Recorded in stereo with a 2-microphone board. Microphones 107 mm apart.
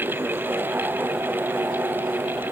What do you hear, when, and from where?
Only background noise.